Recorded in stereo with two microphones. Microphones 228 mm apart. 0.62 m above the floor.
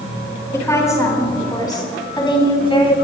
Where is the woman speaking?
15° left (ahead or behind), 5.5 m; by 3.0 s 25° left (ahead or behind), 4.5 m.